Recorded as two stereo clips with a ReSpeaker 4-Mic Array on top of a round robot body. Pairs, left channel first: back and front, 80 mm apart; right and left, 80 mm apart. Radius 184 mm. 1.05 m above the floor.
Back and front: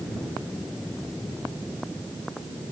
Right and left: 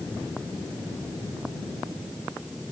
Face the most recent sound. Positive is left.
No sound to turn to.